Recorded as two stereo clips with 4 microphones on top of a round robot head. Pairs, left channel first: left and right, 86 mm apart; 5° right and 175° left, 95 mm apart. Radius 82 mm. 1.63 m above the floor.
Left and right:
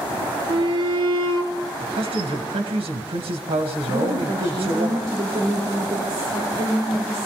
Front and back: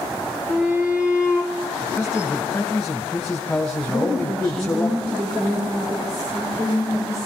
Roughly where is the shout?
Right.